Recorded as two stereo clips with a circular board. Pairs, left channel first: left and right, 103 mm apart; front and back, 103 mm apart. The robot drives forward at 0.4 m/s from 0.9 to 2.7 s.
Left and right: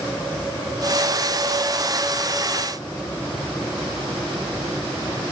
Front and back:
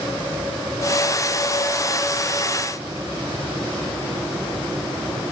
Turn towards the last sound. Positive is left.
No sound to turn to.